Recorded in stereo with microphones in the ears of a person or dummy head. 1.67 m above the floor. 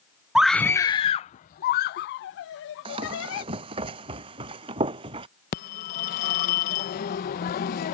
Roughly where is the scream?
Centre.